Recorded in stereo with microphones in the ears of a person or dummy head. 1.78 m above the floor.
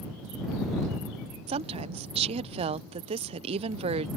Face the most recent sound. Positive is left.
turn(degrees=-35)  # may be behind; listen again after turning